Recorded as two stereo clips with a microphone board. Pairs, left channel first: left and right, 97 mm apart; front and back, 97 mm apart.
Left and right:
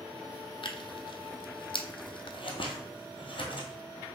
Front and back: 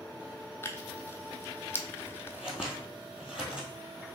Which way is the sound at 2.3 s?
100° left.